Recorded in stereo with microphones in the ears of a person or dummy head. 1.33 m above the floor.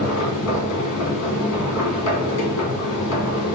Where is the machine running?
65° left (ahead or behind), 1.6 m.